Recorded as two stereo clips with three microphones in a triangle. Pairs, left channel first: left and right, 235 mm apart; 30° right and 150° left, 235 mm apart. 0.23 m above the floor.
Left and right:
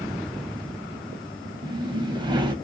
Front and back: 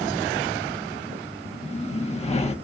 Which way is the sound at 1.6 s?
45° right.